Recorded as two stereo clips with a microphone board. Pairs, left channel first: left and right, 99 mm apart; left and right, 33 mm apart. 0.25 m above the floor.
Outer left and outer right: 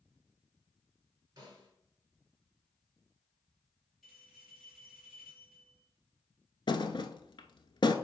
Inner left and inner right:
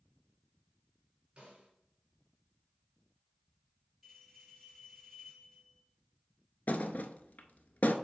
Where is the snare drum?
35° right (ahead or behind), 4 m.